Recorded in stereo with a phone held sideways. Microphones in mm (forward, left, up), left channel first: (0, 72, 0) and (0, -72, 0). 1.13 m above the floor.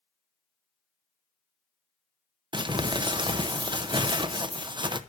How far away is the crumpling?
About 0.6 m.